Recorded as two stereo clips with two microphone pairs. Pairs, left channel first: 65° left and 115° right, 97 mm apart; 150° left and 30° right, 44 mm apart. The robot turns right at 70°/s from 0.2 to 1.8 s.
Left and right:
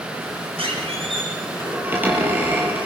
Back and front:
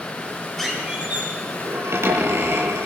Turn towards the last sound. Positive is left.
turn(degrees=-40)